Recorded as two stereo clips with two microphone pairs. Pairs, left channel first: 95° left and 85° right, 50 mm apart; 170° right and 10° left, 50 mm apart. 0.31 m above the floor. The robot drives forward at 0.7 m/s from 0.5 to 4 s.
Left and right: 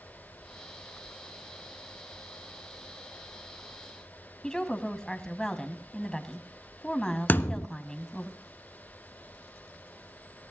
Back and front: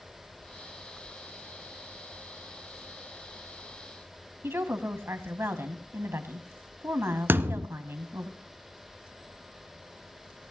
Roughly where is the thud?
Ahead left.